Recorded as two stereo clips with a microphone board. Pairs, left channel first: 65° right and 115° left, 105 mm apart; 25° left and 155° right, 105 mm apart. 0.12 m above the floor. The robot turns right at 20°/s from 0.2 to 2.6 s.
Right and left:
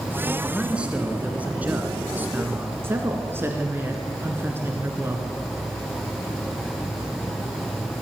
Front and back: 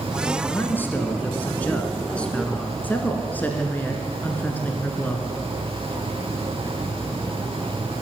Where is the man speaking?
45° left, 1.6 m; by 2.8 s 90° left, 1.6 m.